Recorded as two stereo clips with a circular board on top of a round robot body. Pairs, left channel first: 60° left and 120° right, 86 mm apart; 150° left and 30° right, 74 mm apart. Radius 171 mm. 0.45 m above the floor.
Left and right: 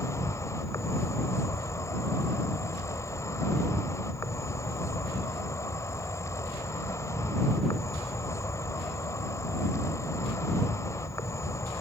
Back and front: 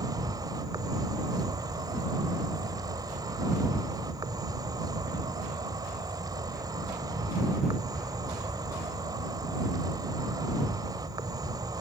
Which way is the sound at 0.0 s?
5° left.